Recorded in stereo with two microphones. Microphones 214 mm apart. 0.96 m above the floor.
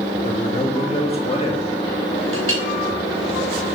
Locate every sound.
0.2 s a man speaking: 30° left (ahead or behind), 1.3 m
2.3 s a clink: 85° right, 3.5 m